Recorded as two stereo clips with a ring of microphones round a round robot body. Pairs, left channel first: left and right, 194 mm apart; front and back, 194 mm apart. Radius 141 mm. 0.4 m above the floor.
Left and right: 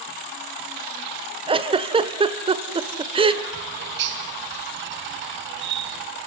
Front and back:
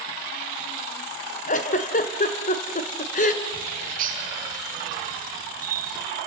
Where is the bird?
125° right, 1.6 m.